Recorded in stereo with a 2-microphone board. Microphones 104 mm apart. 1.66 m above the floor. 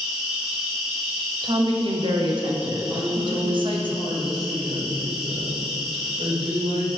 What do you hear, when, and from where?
0.0 s an insect: 5° right (ahead or behind), 1.4 m
1.4 s a woman speaking: 55° right (ahead or behind), 0.9 m
2.9 s a woman speaking: 75° right (ahead or behind), 1.8 m